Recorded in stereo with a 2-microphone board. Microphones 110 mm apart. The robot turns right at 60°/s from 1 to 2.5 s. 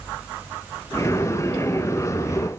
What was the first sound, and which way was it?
Only background noise.